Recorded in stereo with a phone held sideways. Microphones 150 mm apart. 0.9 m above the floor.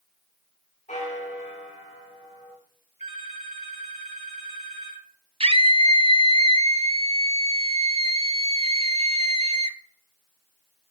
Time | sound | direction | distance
0.9 | a bell | 55° left (ahead or behind) | 6.5 m
3.0 | a phone ringing | 50° right (ahead or behind) | 3 m
5.4 | a scream | 45° right (ahead or behind) | 0.7 m